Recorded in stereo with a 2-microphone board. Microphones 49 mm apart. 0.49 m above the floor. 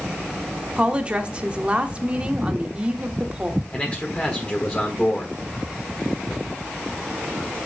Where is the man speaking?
25° left (ahead or behind), 1.5 m.